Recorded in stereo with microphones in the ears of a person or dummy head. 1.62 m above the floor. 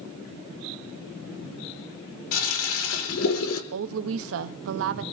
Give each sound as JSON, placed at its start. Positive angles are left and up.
{"t": 2.3, "sound": "a toilet flushing", "side_deg": 85, "distance_m": 1.7}
{"t": 3.7, "sound": "a woman speaking", "side_deg": -70, "distance_m": 0.7}